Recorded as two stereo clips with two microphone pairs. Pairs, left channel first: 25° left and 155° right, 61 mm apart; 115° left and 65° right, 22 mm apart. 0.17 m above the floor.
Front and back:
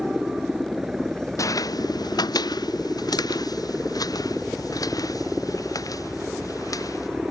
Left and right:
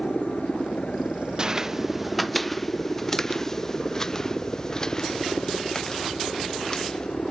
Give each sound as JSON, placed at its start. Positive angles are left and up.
{"t": 0.0, "sound": "a helicopter", "azimuth_deg": 125}
{"t": 1.4, "sound": "footsteps", "azimuth_deg": -10}